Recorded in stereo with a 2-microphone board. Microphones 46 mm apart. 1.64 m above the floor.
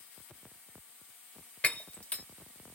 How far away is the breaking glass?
About 1.5 m.